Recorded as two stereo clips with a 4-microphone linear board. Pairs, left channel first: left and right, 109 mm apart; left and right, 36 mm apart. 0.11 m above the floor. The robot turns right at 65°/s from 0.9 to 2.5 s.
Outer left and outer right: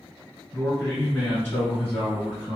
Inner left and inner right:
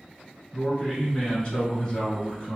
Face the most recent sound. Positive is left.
turn(degrees=10)  # may be behind; listen again after turning